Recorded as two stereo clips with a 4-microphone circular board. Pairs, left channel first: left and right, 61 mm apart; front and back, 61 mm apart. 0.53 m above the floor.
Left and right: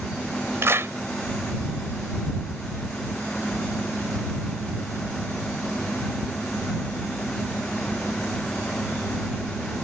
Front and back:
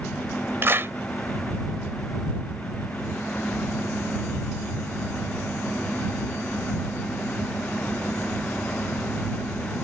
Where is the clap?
135° right.